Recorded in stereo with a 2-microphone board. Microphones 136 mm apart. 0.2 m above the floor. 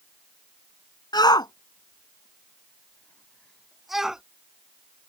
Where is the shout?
30° left (ahead or behind); by 4.2 s 5° right (ahead or behind).